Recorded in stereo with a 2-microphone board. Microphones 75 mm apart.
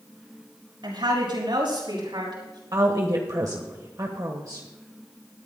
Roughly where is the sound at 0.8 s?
Right.